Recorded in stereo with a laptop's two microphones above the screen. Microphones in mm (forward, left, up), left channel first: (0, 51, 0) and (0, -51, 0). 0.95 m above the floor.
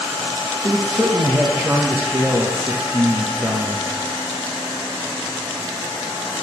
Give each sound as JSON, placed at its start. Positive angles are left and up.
{"t": 0.6, "sound": "a man speaking", "side_deg": -20, "distance_m": 1.1}